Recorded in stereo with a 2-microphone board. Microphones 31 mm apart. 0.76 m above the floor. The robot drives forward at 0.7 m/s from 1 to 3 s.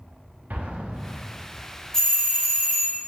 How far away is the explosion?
About 0.5 m.